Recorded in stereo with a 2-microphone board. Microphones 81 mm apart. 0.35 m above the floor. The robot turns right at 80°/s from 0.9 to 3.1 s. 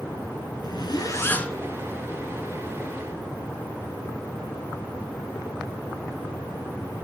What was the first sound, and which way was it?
A zipper, 120° left.